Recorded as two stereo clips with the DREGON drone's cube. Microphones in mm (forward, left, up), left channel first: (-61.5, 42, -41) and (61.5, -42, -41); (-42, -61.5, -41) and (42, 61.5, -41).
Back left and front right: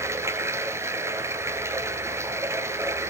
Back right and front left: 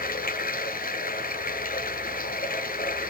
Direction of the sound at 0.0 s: 105° right.